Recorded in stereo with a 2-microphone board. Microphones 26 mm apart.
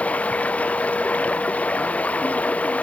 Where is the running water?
70° left (ahead or behind).